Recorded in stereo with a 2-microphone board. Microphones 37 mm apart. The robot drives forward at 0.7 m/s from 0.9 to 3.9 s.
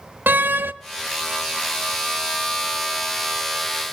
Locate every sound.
0.3 s a door slam: 60° right (ahead or behind), 0.5 m